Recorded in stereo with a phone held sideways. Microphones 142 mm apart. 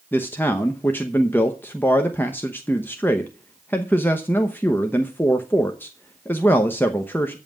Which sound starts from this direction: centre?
A man speaking, at 0.1 s.